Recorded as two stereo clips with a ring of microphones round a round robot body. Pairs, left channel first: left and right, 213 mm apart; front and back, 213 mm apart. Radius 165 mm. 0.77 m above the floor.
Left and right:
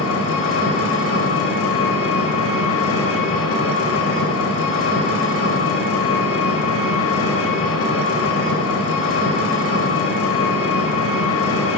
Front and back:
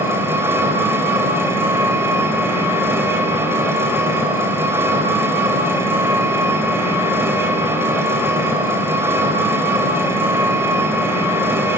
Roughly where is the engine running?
Left.